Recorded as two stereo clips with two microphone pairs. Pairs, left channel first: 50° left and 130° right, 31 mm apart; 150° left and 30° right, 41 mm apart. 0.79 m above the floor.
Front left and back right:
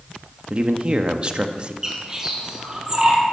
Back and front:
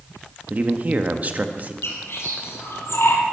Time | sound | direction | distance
0.5 | a man speaking | 75° right | 1.2 m
1.8 | a bird | 165° left | 3.5 m